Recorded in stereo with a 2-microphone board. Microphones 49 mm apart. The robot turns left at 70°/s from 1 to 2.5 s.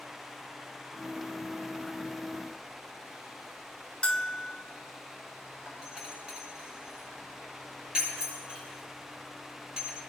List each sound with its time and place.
4.0 s a bell: 15° left (ahead or behind), 0.9 m
5.7 s a doorbell: 25° right (ahead or behind), 8 m